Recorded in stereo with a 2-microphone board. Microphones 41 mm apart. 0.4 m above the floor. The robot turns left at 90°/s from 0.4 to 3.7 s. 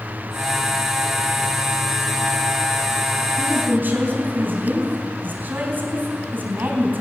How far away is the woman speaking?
About 3.5 m.